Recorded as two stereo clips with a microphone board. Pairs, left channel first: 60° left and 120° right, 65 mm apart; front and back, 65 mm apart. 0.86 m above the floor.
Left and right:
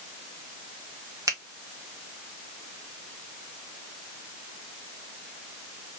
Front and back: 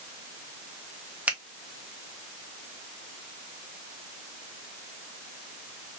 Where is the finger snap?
115° right, 1.0 m.